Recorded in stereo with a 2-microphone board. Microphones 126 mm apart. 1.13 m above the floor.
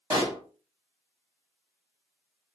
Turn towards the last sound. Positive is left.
turn(degrees=-30)  # may be behind; listen again after turning